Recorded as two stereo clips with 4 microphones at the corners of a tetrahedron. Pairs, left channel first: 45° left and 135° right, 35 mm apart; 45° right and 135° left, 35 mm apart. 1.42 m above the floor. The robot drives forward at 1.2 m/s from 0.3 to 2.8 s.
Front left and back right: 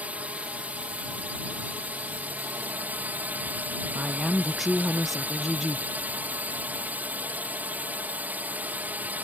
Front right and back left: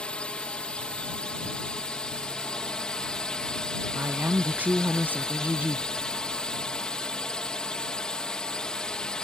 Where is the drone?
95° right; by 9.2 s 110° right.